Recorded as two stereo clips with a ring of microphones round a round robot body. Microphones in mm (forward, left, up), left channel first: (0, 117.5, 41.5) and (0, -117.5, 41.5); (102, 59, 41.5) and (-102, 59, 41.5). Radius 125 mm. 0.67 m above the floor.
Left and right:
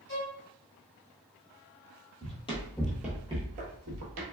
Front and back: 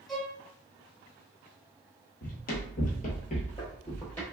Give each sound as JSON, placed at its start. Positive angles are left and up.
{"t": 0.1, "sound": "a violin", "azimuth_deg": 90, "distance_m": 1.3}
{"t": 2.2, "sound": "running footsteps", "azimuth_deg": 35, "distance_m": 1.0}